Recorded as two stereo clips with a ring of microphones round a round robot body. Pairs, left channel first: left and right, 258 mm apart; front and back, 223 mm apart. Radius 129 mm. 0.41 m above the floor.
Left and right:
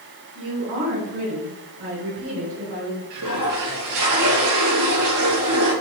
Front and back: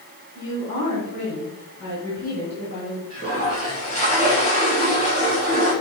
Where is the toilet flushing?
70° right, 3 m.